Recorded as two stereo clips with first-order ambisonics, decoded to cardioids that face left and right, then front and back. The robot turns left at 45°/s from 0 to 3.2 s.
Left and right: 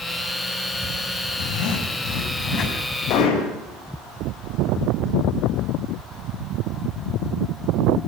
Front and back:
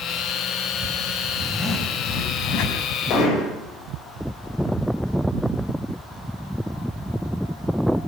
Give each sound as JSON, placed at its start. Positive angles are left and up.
{"t": 1.4, "sound": "a zipper", "azimuth_deg": 85, "distance_m": 5.0}
{"t": 3.1, "sound": "hammering", "azimuth_deg": 45, "distance_m": 7.5}